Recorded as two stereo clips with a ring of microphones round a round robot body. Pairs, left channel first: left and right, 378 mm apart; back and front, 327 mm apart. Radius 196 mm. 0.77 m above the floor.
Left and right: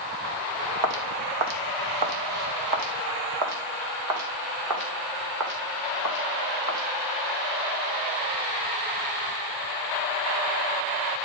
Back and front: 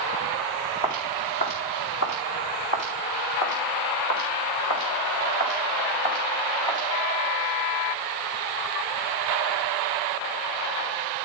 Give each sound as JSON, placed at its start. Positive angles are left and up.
{"t": 0.8, "sound": "footsteps", "azimuth_deg": -105, "distance_m": 2.5}